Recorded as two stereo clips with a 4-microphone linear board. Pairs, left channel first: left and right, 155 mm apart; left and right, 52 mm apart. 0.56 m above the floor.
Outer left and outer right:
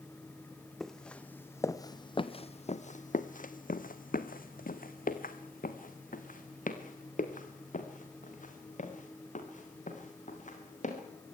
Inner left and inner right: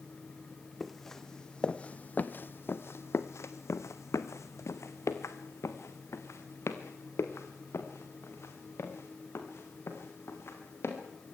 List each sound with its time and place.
0.8 s footsteps: centre (ahead or behind), 1.4 m; by 11.0 s 55° left (ahead or behind), 5.5 m